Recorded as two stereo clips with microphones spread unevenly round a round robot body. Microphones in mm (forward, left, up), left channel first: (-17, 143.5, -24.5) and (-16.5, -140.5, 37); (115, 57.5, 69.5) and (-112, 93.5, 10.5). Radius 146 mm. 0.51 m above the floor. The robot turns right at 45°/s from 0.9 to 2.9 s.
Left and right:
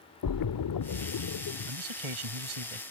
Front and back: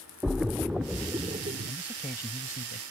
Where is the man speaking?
115° right; by 2.8 s 65° right.